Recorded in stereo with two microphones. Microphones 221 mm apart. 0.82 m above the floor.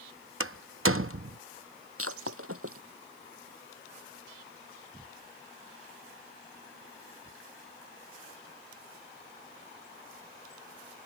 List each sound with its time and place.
0.4 s a door slam: 70° right (ahead or behind)
2.0 s breaking glass: 80° right